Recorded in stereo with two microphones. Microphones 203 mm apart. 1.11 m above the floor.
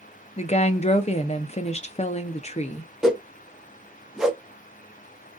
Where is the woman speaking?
35° left (ahead or behind), 0.5 m.